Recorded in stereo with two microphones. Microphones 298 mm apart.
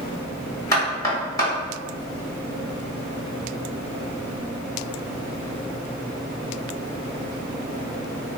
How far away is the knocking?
About 1.0 m.